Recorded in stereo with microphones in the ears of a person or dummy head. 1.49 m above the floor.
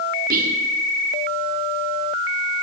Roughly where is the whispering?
Right.